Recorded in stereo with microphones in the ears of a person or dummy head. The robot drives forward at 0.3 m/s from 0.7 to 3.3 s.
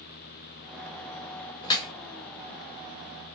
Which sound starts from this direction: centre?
Dripping, at 1.6 s.